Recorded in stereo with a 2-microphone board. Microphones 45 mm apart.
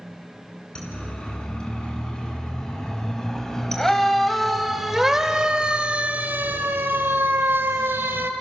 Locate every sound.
0.8 s a siren: 25° left (ahead or behind), 5.5 m; by 8.3 s 55° right (ahead or behind), 2.5 m